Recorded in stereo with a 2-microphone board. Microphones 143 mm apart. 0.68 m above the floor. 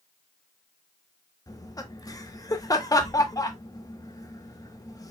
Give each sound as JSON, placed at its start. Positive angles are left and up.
{"t": 1.5, "sound": "laughter", "side_deg": 25, "distance_m": 1.0}